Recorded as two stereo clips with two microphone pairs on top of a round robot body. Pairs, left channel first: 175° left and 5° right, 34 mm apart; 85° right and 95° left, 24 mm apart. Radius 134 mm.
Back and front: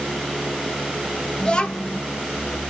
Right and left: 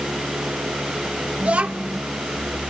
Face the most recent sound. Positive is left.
turn(degrees=110)